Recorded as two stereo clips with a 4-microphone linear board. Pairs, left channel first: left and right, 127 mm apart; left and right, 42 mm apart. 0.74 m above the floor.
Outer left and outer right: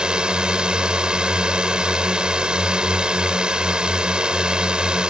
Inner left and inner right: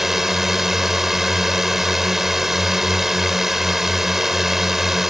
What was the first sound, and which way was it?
A drone, 5° right (ahead or behind).